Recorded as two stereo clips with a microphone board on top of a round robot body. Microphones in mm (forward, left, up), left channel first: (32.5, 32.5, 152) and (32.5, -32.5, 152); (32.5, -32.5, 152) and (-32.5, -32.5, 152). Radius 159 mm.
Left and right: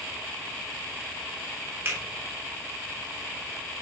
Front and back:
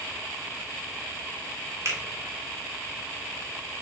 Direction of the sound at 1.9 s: 140° right.